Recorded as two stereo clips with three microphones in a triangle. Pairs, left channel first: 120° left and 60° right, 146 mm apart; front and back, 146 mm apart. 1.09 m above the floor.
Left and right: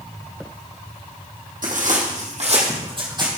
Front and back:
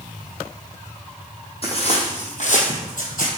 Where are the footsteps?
45° right, 3 m; by 3.3 s straight ahead, 2.5 m.